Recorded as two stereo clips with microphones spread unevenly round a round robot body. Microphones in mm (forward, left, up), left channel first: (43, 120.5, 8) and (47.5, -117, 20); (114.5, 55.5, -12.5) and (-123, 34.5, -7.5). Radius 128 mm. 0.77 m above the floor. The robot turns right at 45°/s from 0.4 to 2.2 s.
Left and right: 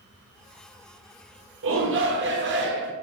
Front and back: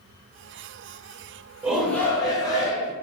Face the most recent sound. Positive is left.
turn(degrees=-65)